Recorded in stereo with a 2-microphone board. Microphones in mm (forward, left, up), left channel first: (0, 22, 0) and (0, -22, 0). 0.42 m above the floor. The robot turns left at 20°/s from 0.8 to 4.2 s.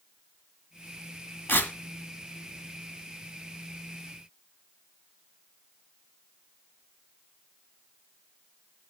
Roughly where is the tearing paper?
Left.